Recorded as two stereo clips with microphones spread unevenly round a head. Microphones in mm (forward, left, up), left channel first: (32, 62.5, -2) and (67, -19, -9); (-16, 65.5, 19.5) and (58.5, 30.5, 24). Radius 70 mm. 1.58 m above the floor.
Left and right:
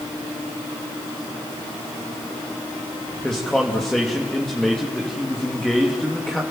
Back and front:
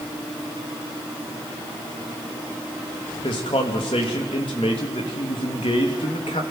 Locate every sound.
3.2 s a man speaking: 160° right, 2.5 m